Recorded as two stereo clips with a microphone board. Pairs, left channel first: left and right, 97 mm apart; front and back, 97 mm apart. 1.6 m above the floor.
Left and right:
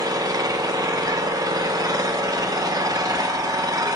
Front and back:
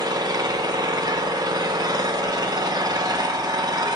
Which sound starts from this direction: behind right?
An engine running, at 0.0 s.